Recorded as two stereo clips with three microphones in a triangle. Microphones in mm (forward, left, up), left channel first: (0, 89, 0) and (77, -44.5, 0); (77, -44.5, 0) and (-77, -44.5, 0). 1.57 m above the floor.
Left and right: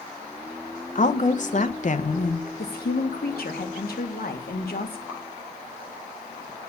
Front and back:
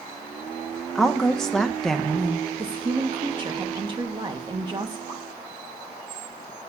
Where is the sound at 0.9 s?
90° left, 1.0 m.